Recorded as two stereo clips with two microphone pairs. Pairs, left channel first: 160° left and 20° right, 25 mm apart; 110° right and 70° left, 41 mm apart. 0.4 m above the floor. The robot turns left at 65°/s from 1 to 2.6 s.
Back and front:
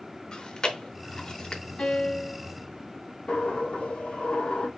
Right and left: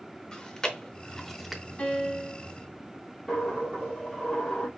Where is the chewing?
170° right, 0.8 m; by 1.6 s 150° left, 0.8 m.